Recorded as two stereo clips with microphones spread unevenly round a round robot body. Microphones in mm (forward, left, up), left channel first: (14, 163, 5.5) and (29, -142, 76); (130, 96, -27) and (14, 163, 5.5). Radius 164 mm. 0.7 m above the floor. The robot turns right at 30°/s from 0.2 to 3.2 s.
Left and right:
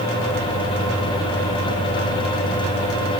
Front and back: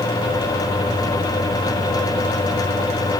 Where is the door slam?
No door slam in this recording.